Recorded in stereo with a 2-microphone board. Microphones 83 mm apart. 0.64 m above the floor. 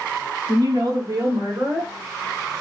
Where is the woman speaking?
50° right (ahead or behind), 1.0 m; by 1.9 s 25° right (ahead or behind), 1.7 m.